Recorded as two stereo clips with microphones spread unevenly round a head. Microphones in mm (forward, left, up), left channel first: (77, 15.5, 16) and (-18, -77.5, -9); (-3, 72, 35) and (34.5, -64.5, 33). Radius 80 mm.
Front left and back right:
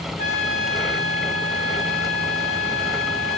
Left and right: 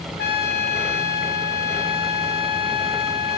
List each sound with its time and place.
0.2 s a trumpet: 95° left, 1.4 m